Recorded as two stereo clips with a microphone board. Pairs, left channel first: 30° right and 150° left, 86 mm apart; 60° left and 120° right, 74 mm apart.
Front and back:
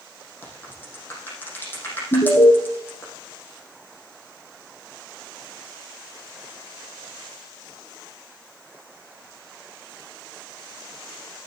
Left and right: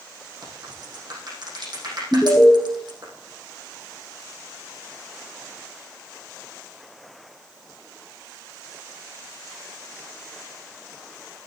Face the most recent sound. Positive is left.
turn(degrees=-10)